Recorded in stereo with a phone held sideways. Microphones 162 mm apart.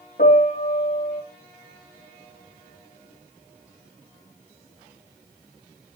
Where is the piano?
70° left (ahead or behind), 3.5 m.